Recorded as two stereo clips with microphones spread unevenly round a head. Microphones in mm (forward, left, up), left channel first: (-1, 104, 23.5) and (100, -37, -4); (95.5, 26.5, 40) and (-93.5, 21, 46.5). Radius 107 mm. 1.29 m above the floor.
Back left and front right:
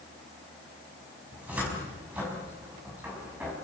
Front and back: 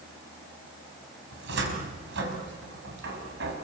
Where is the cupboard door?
140° right, 4.5 m.